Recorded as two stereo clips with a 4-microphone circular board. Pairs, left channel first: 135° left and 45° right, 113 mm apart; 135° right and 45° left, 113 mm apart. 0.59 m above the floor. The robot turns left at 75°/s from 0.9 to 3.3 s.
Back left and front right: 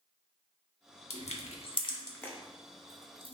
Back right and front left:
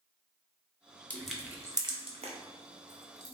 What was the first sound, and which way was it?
Crushing, 150° left.